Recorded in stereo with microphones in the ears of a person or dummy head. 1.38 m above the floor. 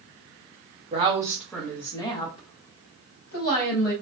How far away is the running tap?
I don't hear a running tap.